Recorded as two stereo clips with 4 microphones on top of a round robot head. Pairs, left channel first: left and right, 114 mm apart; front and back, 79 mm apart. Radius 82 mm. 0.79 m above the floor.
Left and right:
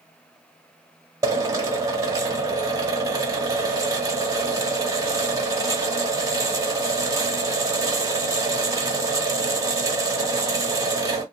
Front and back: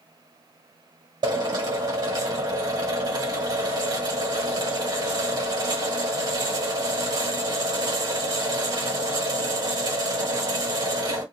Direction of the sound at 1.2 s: 150° right.